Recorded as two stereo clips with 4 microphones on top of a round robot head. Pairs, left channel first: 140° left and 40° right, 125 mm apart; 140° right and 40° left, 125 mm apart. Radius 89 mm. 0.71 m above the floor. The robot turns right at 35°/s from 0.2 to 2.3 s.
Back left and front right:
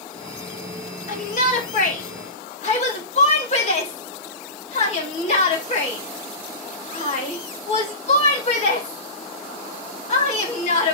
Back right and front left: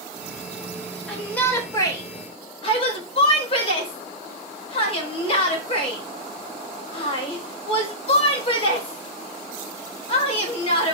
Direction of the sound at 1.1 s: 135° left.